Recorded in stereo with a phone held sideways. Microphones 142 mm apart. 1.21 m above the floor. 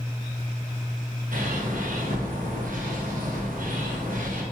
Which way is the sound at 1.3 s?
70° right (ahead or behind).